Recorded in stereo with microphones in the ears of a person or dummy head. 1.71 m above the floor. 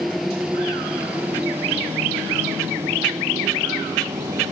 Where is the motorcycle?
5° right (ahead or behind); by 4.5 s 20° right (ahead or behind).